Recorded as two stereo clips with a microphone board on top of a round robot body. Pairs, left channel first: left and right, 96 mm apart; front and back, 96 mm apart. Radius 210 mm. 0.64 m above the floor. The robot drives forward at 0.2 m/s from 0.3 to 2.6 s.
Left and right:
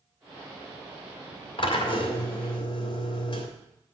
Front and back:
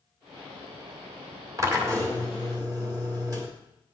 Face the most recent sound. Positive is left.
turn(degrees=130)